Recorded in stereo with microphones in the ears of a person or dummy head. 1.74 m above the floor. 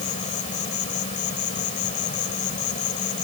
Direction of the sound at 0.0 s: 45° left (ahead or behind).